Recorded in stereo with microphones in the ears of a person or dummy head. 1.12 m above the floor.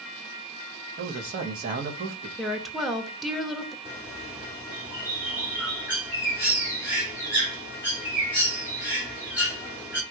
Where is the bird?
10° right (ahead or behind), 1.1 m.